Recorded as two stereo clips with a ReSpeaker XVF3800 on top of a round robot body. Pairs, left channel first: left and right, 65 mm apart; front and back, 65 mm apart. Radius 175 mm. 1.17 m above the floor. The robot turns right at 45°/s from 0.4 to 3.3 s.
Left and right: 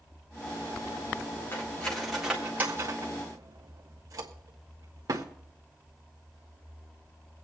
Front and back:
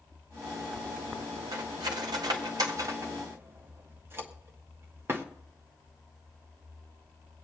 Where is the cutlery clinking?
155° left, 1.1 m; by 5.2 s 125° right, 1.1 m.